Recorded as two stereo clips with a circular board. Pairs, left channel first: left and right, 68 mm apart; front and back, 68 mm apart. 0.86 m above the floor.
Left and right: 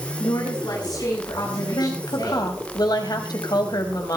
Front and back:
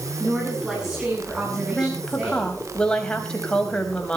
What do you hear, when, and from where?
0.2 s a woman speaking: 100° left, 8.5 m; by 2.5 s 105° left, 10 m
1.7 s a woman speaking: 75° left, 4.5 m